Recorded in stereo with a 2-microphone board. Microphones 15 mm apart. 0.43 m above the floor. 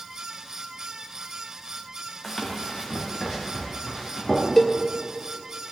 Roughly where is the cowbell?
Left.